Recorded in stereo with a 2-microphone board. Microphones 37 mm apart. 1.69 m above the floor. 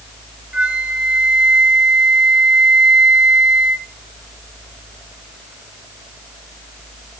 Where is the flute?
25° right (ahead or behind), 1.4 m.